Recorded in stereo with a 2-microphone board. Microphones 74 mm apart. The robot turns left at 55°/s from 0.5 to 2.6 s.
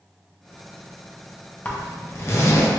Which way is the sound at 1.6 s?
20° left (ahead or behind).